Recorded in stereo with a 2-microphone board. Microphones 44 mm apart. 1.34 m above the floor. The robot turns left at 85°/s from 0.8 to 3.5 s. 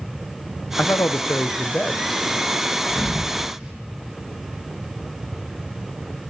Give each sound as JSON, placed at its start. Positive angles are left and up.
{"t": 0.8, "sound": "a man speaking", "azimuth_deg": 120, "distance_m": 0.6}
{"t": 2.9, "sound": "a thud", "side_deg": 35, "distance_m": 6.5}